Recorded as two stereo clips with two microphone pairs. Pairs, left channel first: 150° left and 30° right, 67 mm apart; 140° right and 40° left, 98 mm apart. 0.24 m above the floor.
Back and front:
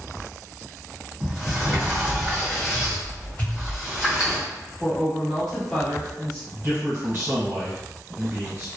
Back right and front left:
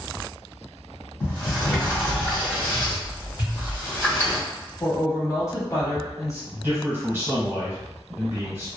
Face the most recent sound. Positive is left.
turn(degrees=-10)